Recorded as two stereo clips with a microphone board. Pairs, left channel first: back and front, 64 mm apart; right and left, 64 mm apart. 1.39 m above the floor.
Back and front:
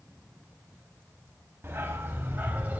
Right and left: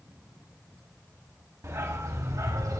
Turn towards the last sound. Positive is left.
turn(degrees=65)